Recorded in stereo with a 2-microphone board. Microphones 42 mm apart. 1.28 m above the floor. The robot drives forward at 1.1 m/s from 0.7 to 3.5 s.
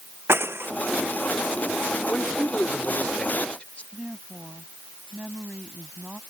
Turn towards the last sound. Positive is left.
turn(degrees=-35)  # may be behind; listen again after turning